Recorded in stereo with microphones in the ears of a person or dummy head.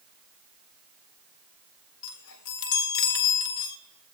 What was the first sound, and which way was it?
A chime, 75° left (ahead or behind).